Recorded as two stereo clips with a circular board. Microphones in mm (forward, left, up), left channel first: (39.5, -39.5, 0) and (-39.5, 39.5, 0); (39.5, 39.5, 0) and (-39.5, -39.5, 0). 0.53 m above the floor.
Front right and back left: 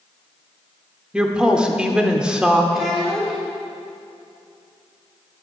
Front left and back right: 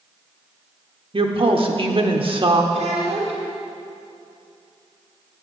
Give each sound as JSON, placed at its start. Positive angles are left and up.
{"t": 1.1, "sound": "a woman speaking", "azimuth_deg": -145, "distance_m": 1.0}
{"t": 2.7, "sound": "a child speaking", "azimuth_deg": -140, "distance_m": 1.9}